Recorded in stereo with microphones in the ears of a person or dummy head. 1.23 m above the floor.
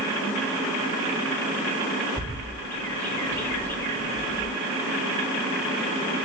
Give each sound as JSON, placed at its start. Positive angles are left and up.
{"t": 2.2, "sound": "a bird", "side_deg": 5, "distance_m": 0.8}